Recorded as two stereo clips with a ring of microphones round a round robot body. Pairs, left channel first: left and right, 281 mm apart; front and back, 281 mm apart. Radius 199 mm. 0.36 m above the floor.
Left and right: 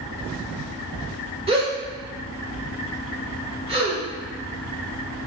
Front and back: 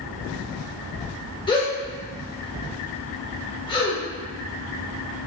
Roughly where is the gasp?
Ahead right.